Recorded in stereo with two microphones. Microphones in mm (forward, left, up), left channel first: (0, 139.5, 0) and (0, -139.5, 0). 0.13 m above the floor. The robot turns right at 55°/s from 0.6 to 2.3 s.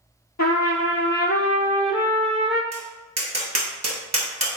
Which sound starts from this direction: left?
A trumpet, at 0.4 s.